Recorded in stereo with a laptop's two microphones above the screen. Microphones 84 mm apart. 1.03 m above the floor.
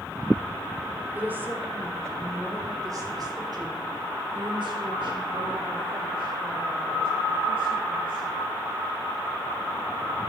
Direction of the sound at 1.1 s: 20° right (ahead or behind).